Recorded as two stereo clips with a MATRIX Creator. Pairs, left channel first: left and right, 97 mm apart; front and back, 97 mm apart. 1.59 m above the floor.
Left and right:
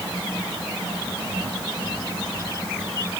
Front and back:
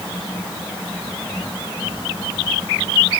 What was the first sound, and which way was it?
Only background noise.